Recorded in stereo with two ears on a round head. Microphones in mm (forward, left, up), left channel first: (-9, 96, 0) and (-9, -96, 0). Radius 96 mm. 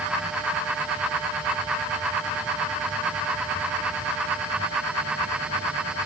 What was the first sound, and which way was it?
Only background noise.